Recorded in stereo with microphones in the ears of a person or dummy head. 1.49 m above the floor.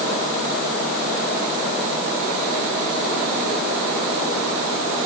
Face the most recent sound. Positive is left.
No sound to turn to.